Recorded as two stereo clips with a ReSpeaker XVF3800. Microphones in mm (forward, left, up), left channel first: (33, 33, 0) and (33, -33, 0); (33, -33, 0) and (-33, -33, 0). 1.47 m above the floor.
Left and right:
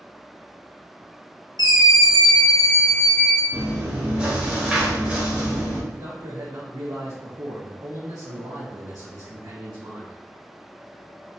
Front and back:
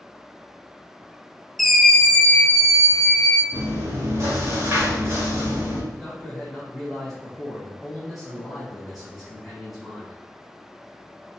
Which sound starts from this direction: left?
A scream, at 1.6 s.